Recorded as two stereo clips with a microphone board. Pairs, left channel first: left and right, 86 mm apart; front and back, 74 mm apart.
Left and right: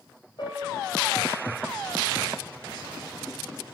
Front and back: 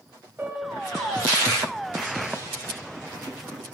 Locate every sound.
0.4 s a piano: 120° left, 1.8 m